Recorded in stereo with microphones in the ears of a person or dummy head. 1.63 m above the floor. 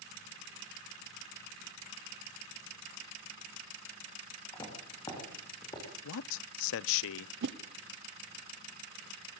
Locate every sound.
4.5 s footsteps: 20° left (ahead or behind), 7 m
6.0 s a man speaking: 75° left (ahead or behind), 0.5 m
7.4 s a whoosh: 65° right (ahead or behind), 1.1 m